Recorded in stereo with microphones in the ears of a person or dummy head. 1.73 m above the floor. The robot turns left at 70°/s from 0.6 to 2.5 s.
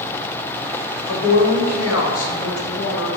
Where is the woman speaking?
160° left, 0.5 m; by 3.1 s 60° left, 0.5 m.